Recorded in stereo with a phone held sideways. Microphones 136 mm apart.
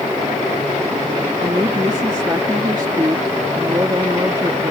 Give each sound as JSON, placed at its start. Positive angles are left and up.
{"t": 1.4, "sound": "a woman speaking", "side_deg": -30}